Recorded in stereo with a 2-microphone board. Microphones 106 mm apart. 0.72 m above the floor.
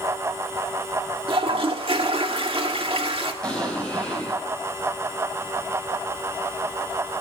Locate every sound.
1.3 s a toilet flushing: 55° right (ahead or behind), 1.5 m
3.4 s an explosion: 10° left (ahead or behind), 6 m